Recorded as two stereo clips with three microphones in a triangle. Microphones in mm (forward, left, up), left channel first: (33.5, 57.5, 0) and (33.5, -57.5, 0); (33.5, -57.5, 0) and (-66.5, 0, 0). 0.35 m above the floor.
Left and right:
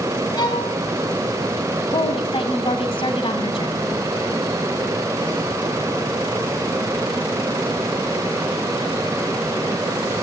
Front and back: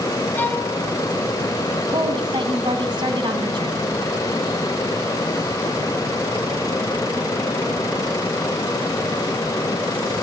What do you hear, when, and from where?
0.4 s a violin: 40° left, 2 m
1.9 s a woman speaking: 110° left, 2 m